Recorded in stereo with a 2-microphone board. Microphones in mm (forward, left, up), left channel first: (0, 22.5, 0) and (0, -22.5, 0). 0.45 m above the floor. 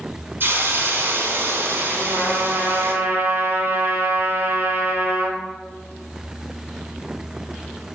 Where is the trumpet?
50° right (ahead or behind), 2.5 m.